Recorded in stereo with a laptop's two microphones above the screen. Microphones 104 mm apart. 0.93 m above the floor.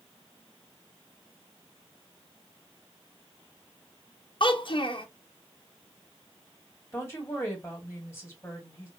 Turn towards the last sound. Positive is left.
turn(degrees=25)  # may be behind; listen again after turning